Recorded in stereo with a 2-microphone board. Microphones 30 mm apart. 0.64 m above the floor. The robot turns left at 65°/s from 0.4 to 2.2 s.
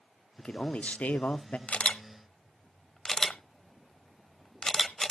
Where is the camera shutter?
45° left (ahead or behind), 1.0 m; by 5.1 s 15° left (ahead or behind), 1.0 m.